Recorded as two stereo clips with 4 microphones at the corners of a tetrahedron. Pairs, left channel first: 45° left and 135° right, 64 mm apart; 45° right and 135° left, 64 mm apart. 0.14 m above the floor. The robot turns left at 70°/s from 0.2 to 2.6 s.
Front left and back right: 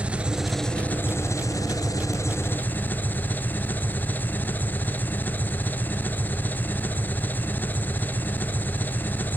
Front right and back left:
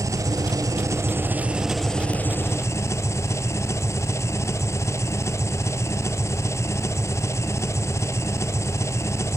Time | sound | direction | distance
0.0 | an engine running | 155° left | 1.1 m